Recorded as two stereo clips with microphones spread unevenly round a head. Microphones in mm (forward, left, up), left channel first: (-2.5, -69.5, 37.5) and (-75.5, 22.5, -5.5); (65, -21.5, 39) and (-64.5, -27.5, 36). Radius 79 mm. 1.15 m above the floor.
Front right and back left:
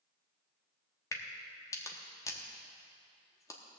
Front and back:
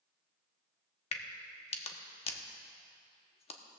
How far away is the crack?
About 1.0 m.